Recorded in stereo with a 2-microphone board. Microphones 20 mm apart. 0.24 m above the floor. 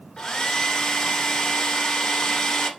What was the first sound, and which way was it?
A hair dryer, 45° left (ahead or behind).